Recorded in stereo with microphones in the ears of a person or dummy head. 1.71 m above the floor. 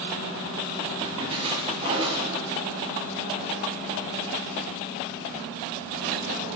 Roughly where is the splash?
Right.